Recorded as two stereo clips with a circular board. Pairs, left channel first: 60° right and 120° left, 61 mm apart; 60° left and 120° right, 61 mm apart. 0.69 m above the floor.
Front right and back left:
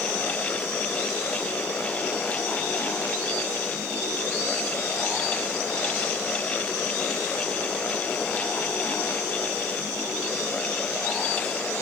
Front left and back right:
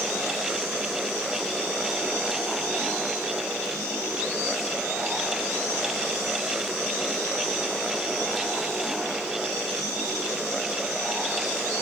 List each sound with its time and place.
Only background noise.